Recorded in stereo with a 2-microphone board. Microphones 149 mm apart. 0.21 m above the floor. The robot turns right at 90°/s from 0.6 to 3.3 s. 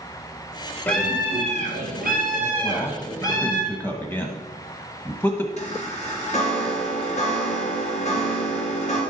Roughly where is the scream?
Behind.